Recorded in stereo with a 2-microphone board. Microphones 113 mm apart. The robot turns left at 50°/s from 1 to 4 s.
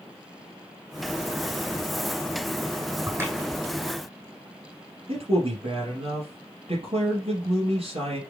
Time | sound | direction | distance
3.1 | a crack | 30° right (ahead or behind) | 2.5 m
5.1 | a man speaking | 55° right (ahead or behind) | 2.5 m